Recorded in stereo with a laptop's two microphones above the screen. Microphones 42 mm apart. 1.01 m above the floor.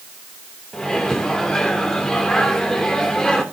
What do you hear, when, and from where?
0.7 s a microwave: 15° left (ahead or behind), 2.5 m